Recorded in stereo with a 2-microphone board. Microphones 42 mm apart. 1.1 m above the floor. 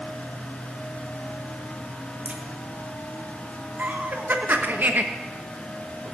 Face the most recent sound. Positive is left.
turn(degrees=-55)  # may be behind; listen again after turning